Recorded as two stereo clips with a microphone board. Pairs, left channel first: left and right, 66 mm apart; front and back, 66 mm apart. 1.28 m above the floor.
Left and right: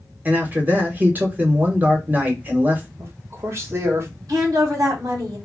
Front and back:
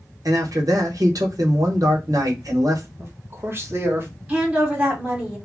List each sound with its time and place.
0.2 s a man speaking: 155° right, 0.9 m
3.0 s a man speaking: 130° right, 1.0 m
4.3 s a woman speaking: 115° right, 1.3 m